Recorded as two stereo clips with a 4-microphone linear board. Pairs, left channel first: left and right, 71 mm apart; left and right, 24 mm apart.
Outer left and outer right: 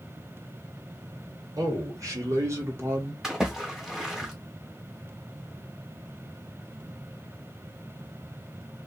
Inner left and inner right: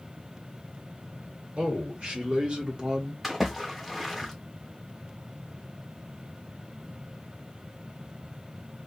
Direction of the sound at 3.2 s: 5° right (ahead or behind).